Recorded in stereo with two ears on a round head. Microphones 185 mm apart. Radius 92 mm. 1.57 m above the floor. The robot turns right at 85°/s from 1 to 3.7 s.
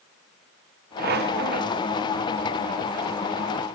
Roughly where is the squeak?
Right.